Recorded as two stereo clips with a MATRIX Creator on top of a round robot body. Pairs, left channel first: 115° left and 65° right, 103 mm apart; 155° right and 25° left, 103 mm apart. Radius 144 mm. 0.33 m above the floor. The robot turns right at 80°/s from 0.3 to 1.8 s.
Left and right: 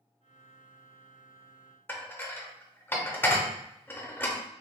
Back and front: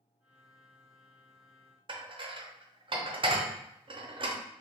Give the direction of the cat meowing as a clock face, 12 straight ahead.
I don't hear a cat meowing.